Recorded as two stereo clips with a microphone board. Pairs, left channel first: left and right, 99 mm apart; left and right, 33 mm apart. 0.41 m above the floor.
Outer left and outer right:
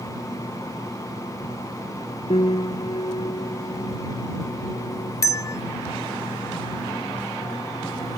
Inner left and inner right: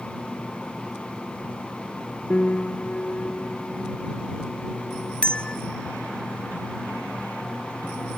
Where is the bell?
35° left (ahead or behind).